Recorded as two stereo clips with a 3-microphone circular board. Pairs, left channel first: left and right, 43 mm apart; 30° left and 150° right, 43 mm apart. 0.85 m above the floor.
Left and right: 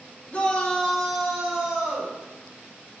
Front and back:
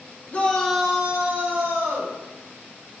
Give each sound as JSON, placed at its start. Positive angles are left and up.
{"t": 0.3, "sound": "a shout", "azimuth_deg": 60, "distance_m": 0.6}